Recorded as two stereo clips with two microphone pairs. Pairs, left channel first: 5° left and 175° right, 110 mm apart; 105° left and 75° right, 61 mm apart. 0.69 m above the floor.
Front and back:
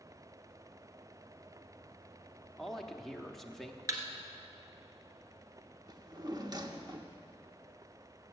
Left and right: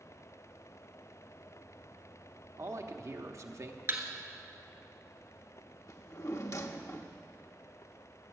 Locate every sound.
2.6 s a man speaking: 80° right, 1.0 m
3.9 s a thud: 115° right, 1.7 m
5.9 s a drawer: 135° left, 0.8 m